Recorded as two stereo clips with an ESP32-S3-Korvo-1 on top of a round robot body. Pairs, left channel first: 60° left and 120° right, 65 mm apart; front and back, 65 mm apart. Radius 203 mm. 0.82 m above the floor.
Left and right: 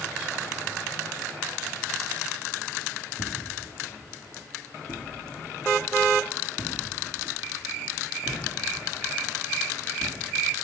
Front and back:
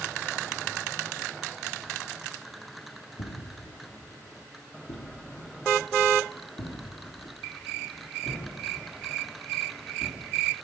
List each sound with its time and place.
3.2 s footsteps: straight ahead, 2 m; by 10.5 s 20° left, 6.5 m